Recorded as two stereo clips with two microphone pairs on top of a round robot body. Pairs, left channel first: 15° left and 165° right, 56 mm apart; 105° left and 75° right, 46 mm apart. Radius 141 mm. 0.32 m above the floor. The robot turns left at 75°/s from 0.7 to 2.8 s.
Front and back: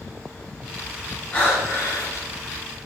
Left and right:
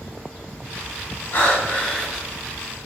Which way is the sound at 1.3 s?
95° left.